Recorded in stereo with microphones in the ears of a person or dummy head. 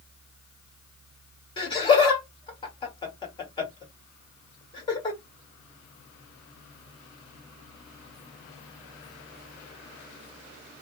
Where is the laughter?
25° left (ahead or behind), 1.5 m.